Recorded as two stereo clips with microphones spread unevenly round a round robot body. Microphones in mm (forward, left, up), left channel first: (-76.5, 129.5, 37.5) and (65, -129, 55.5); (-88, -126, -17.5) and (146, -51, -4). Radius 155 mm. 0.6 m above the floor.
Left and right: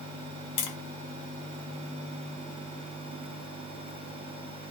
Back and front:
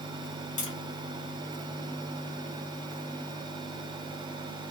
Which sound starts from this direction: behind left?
Tapping, at 0.6 s.